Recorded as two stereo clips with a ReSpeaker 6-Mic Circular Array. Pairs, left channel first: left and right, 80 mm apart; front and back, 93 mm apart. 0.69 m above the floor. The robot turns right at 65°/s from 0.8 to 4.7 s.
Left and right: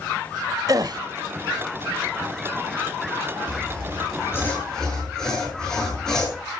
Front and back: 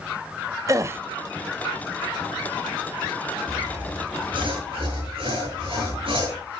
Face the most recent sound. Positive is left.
turn(degrees=170)